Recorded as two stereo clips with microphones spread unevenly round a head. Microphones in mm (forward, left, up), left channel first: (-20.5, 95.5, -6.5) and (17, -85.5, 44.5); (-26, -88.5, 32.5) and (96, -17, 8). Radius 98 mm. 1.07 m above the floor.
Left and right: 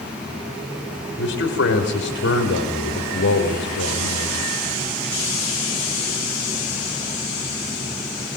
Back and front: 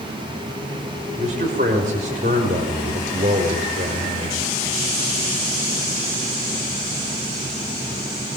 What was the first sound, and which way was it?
A man speaking, 80° left.